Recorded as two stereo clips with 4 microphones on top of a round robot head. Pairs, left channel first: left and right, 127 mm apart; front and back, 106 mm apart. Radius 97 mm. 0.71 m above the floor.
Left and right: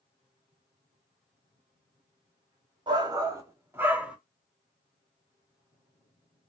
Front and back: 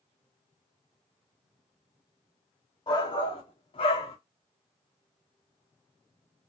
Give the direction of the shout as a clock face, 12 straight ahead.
1 o'clock.